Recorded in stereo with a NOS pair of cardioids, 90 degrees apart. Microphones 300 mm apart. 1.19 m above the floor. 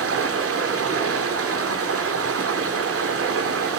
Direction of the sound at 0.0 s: 50° right.